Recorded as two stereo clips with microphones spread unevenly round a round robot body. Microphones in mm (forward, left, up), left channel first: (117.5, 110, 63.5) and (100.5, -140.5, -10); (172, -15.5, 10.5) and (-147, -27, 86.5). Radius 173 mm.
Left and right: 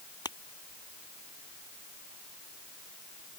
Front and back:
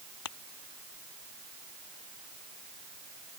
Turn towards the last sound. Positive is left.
turn(degrees=15)